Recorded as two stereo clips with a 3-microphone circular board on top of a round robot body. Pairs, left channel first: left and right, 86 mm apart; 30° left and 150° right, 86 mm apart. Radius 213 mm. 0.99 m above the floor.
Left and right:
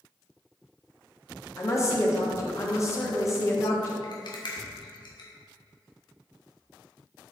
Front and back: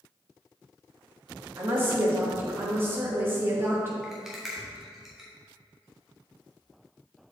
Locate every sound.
1.6 s a woman speaking: 145° left, 1.8 m
4.0 s a rattle: 125° left, 1.3 m